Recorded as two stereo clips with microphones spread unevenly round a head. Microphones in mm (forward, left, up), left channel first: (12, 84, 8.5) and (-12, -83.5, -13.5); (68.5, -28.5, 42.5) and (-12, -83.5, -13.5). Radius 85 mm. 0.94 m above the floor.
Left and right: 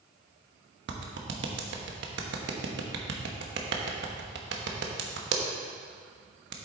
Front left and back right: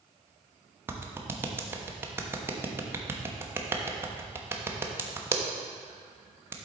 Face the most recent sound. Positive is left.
turn(degrees=-95)